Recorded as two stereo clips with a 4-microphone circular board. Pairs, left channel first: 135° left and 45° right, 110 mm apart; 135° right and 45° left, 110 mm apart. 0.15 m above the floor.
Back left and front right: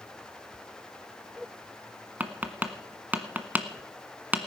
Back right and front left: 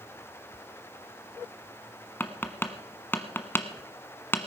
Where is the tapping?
95° right, 1.2 m.